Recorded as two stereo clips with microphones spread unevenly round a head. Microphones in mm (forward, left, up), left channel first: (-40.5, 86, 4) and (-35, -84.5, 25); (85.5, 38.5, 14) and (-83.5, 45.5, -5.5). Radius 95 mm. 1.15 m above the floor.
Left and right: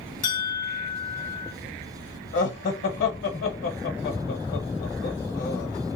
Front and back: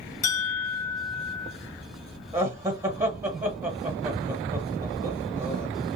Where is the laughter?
105° left, 1.3 m.